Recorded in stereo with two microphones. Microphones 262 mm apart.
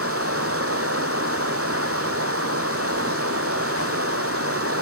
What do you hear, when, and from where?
0.0 s running water: 55° right (ahead or behind), 0.8 m